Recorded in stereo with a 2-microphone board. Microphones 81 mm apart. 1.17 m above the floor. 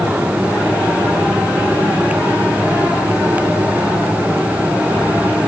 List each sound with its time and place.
Only background noise.